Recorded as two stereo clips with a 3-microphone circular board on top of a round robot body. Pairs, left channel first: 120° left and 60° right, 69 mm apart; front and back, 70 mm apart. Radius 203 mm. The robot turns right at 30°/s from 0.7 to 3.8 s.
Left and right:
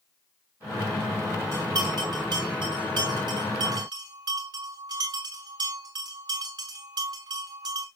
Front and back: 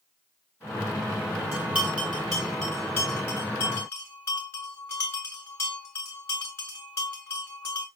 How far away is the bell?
About 0.6 m.